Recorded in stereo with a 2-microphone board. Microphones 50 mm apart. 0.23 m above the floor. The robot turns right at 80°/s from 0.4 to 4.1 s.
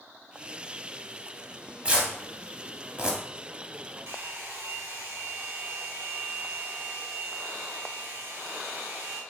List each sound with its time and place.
1.9 s tearing paper: 25° right (ahead or behind), 0.8 m; by 3.2 s 15° right (ahead or behind), 0.8 m
4.1 s a hair dryer: 50° right (ahead or behind), 1.0 m; by 9.2 s 55° right (ahead or behind), 1.0 m